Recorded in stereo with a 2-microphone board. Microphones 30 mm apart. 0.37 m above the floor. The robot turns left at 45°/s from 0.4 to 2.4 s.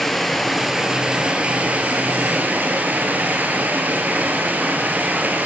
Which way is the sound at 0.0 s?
Straight ahead.